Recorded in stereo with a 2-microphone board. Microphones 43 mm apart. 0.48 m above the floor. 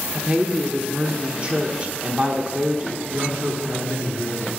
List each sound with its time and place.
0.1 s a woman speaking: 30° right (ahead or behind), 0.8 m
3.1 s a man speaking: 75° right (ahead or behind), 4 m